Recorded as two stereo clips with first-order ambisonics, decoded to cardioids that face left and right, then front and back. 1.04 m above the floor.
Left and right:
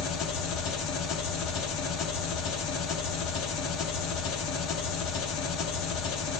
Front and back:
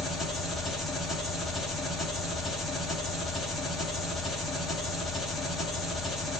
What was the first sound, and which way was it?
An engine running, 65° left.